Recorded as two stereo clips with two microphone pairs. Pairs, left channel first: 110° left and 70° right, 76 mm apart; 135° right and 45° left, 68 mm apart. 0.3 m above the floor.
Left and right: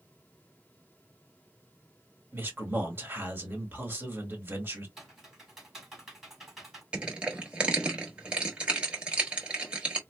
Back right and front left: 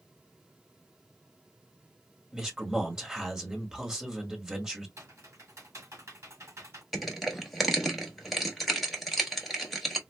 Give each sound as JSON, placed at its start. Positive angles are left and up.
{"t": 2.3, "sound": "a man speaking", "azimuth_deg": -30, "distance_m": 1.5}
{"t": 5.0, "sound": "typing on a keyboard", "azimuth_deg": 15, "distance_m": 2.0}
{"t": 6.9, "sound": "crushing", "azimuth_deg": -40, "distance_m": 1.1}